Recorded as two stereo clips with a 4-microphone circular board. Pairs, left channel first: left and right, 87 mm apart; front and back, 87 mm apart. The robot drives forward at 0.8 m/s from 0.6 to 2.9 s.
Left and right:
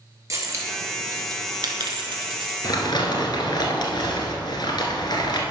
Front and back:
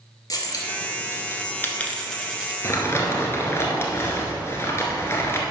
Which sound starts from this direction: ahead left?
Crumpling, at 2.6 s.